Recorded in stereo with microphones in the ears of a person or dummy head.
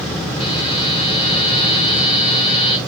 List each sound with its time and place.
0.4 s a buzzer: 30° left (ahead or behind), 4 m